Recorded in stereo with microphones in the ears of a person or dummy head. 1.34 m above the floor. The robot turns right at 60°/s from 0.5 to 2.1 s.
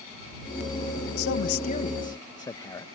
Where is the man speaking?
110° left; by 2.9 s 170° left.